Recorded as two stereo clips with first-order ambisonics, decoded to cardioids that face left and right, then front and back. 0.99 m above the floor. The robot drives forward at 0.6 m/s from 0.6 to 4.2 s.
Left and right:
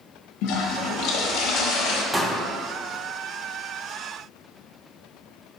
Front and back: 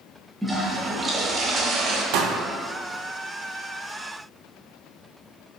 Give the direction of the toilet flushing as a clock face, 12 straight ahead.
9 o'clock.